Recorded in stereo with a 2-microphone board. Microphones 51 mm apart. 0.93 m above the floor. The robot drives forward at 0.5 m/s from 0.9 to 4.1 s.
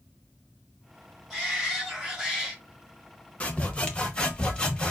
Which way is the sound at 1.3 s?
5° left (ahead or behind).